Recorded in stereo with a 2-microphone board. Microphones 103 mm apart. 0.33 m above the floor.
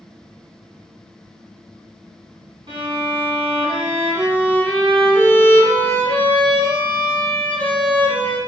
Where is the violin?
55° right (ahead or behind), 1.8 m.